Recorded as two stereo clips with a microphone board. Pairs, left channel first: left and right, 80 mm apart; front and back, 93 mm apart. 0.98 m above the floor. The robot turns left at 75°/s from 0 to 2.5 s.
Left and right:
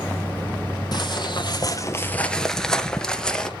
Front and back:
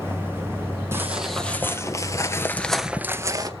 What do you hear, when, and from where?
0.9 s footsteps: 120° left, 2.5 m; by 3.5 s 165° left, 1.2 m